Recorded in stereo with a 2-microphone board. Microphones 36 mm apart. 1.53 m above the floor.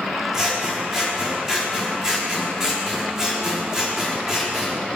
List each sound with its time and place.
0.3 s scissors: 15° right (ahead or behind), 4 m